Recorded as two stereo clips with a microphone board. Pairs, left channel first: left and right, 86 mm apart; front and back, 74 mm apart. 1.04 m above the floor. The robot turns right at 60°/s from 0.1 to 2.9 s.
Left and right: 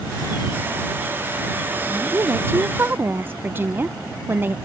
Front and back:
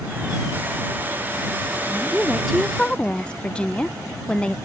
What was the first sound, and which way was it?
A woman speaking, 120° right.